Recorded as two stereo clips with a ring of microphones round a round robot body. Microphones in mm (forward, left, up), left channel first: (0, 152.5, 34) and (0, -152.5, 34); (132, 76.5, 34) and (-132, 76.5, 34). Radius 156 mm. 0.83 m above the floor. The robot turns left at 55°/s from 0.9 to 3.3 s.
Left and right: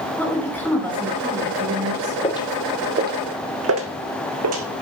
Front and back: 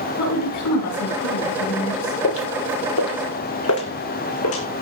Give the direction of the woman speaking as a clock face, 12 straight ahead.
12 o'clock.